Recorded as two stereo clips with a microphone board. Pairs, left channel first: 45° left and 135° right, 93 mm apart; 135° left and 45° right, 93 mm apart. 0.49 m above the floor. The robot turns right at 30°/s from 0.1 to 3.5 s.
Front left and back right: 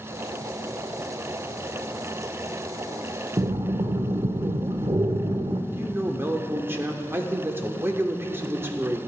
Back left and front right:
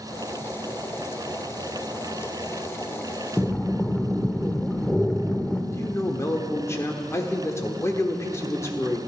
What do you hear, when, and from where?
3.4 s breathing: 150° right, 0.6 m; by 5.6 s 145° right, 0.6 m
5.7 s a man speaking: 175° left, 0.9 m